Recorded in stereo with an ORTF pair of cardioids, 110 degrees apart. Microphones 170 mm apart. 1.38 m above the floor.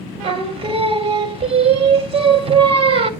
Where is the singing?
35° right, 1.0 m.